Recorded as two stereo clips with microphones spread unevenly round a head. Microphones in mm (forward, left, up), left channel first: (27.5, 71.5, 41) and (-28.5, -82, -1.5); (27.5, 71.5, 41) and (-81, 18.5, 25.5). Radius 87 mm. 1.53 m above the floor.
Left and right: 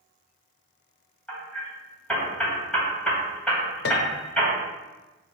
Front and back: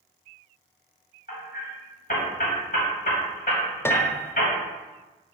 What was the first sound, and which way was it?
Hammering, 5° right.